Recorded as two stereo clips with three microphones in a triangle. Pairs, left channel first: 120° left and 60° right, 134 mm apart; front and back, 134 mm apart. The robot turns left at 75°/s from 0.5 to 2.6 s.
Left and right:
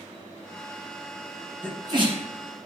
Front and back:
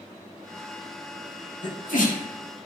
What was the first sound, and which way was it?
A sneeze, 20° left.